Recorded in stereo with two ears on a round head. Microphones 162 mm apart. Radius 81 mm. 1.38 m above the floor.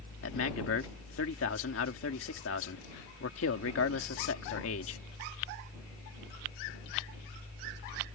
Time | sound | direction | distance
0.2 | a man speaking | 85° left | ?